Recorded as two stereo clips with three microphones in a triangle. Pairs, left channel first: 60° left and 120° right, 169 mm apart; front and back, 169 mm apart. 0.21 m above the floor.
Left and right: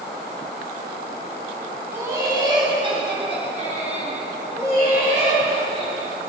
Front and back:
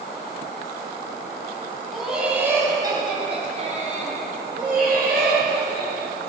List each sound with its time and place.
1.9 s laughter: 85° right, 1.4 m; by 6.1 s 165° right, 3.5 m